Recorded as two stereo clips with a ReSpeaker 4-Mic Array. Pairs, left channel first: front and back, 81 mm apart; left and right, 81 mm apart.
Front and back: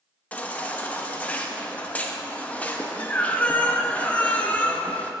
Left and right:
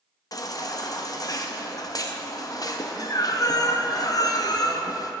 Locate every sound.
0.3 s a baby crying: 70° left, 0.6 m